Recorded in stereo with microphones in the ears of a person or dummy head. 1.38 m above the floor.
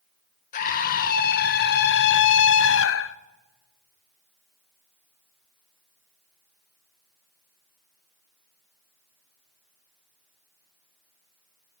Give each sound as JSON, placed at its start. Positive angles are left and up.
{"t": 0.5, "sound": "a scream", "side_deg": 45, "distance_m": 1.6}